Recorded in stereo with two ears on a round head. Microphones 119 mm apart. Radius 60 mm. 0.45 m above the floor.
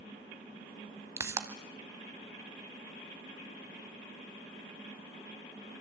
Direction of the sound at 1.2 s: 20° right (ahead or behind).